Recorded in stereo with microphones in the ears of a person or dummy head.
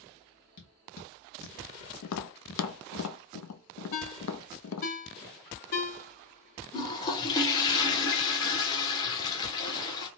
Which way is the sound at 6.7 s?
20° left (ahead or behind).